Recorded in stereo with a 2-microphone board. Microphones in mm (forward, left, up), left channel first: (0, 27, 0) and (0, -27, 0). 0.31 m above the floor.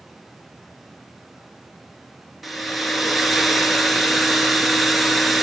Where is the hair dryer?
Centre (ahead or behind), 1.1 m.